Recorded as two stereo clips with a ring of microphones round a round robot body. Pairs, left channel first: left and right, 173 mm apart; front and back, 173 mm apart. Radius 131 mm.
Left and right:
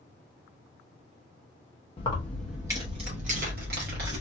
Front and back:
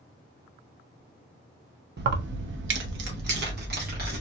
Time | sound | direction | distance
2.0 | keys jangling | 155° left | 0.7 m